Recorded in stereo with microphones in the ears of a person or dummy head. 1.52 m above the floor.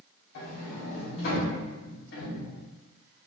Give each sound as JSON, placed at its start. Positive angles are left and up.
{"t": 0.3, "sound": "a sliding door", "side_deg": 60, "distance_m": 0.7}